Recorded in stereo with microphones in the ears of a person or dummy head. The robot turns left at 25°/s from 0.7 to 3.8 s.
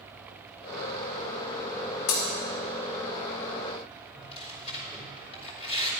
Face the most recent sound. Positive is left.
turn(degrees=35)  # may be behind; listen again after turning